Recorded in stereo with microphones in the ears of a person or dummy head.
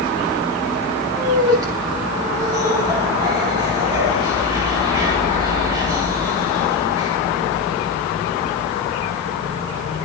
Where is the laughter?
20° right (ahead or behind), 8.5 m.